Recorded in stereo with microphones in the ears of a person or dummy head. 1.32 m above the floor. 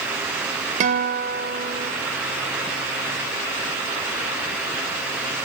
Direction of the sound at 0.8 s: 40° right (ahead or behind).